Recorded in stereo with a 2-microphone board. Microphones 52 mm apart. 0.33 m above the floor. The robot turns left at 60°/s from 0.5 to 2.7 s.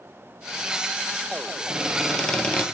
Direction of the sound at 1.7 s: 155° right.